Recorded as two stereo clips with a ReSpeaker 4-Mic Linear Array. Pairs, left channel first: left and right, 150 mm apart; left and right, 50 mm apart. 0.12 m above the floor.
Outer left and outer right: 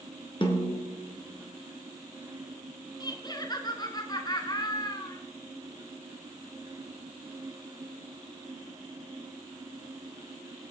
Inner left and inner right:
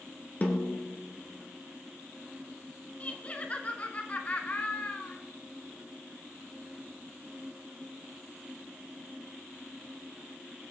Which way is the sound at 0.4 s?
35° left (ahead or behind).